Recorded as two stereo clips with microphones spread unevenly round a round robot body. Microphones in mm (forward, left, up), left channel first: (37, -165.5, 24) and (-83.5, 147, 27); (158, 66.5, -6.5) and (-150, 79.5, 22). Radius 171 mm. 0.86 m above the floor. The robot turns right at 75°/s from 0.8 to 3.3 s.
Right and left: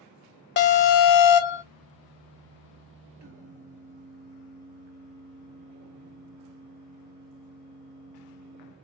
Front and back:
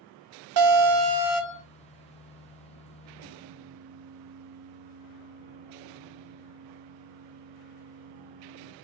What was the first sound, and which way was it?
An alarm, 130° right.